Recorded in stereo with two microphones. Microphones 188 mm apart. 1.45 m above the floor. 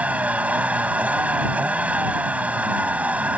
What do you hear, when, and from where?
0.0 s a vehicle: 5° right (ahead or behind)